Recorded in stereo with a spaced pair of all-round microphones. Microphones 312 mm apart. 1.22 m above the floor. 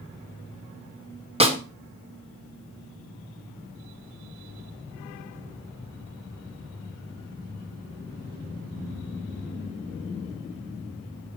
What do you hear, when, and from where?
1.4 s a snare drum: 20° right (ahead or behind), 1.6 m